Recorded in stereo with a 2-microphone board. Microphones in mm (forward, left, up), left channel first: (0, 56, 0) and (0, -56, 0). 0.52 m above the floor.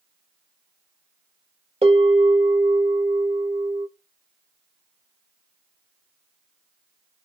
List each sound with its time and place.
1.8 s a bell: 60° right (ahead or behind), 1.3 m